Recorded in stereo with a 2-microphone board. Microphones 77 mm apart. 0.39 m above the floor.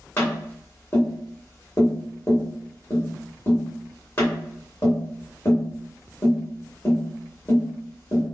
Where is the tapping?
35° left (ahead or behind), 1.8 m.